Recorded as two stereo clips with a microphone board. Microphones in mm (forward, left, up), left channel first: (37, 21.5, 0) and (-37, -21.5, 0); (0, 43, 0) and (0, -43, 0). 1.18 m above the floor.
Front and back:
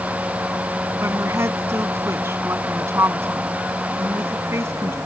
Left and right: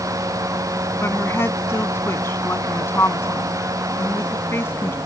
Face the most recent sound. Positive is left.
turn(degrees=150)